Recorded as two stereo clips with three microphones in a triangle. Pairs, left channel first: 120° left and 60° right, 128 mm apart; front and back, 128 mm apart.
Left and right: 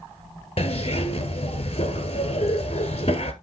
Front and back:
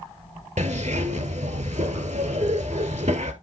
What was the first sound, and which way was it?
A zipper, 155° left.